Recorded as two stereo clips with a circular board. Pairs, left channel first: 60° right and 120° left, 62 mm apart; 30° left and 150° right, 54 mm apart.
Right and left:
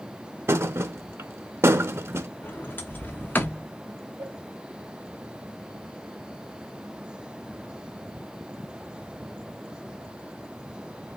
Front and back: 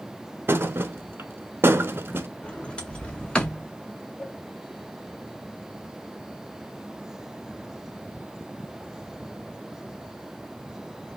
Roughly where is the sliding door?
Ahead right.